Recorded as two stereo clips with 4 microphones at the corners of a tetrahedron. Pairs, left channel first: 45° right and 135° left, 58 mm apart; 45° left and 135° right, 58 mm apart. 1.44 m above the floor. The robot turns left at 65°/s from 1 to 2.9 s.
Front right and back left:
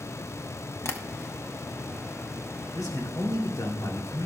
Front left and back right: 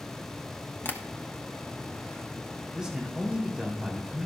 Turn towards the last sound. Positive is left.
turn(degrees=-65)